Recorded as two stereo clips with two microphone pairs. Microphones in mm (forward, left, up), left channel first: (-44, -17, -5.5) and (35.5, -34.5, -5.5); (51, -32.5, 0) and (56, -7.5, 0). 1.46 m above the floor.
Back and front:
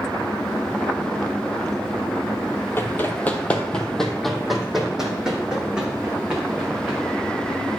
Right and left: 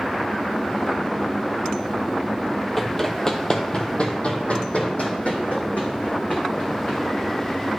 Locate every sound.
2.8 s running footsteps: 175° left, 1.6 m; by 7.8 s 85° right, 5 m